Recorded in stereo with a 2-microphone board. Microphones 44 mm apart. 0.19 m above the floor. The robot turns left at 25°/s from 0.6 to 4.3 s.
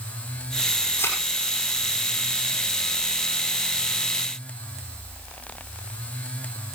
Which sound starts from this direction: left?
A thud, at 1.0 s.